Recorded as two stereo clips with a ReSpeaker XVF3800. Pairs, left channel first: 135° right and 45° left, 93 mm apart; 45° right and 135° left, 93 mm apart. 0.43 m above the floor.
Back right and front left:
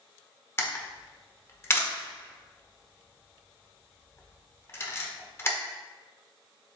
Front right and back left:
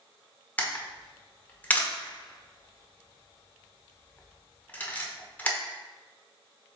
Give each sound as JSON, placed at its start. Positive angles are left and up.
{"t": 0.6, "sound": "a camera shutter", "azimuth_deg": -100, "distance_m": 0.7}